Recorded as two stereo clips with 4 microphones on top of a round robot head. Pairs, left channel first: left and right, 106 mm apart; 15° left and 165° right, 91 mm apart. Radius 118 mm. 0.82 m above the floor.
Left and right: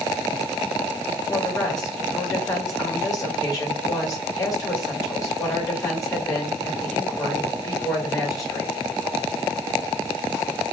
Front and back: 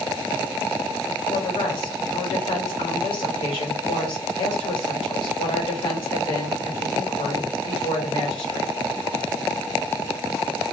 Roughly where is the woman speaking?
Ahead left.